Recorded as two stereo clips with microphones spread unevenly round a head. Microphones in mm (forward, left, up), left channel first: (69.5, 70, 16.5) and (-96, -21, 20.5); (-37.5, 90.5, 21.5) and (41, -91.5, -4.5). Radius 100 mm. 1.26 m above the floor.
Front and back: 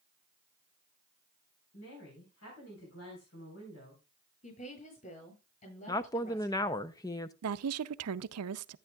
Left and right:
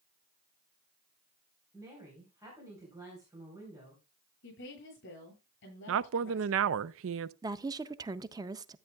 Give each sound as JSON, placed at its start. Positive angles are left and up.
{"t": 1.7, "sound": "a woman speaking", "azimuth_deg": 10, "distance_m": 4.0}
{"t": 4.4, "sound": "a woman speaking", "azimuth_deg": 75, "distance_m": 9.0}
{"t": 5.9, "sound": "a woman speaking", "azimuth_deg": -45, "distance_m": 0.5}
{"t": 7.4, "sound": "a woman speaking", "azimuth_deg": -140, "distance_m": 0.5}